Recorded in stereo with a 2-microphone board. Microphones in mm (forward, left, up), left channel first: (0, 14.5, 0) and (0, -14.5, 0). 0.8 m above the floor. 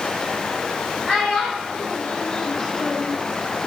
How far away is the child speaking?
About 1.7 m.